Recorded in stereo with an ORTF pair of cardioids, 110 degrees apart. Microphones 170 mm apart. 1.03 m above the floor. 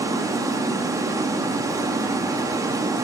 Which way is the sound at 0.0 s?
20° right.